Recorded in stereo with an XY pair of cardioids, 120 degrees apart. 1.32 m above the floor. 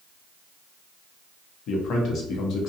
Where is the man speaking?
65° left, 0.8 m.